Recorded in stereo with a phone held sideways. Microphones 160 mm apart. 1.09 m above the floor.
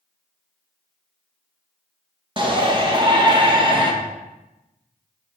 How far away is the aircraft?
I don't hear an aircraft.